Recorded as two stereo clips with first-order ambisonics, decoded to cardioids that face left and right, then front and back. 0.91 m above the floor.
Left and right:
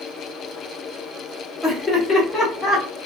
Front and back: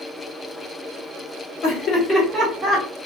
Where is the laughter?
15° left, 1.2 m; by 2.9 s 165° left, 1.1 m.